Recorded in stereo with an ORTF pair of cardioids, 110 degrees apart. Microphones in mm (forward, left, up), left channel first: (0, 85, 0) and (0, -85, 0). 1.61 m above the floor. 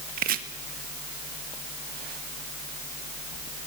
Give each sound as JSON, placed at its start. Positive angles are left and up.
{"t": 0.2, "sound": "chopping", "azimuth_deg": -65, "distance_m": 1.7}